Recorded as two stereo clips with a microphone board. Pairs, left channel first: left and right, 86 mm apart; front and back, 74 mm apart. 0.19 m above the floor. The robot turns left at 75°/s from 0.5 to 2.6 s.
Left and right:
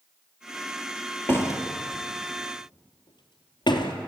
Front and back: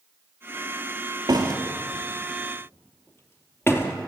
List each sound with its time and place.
1.3 s a door slam: 155° left, 2.5 m; by 3.9 s 55° left, 2.5 m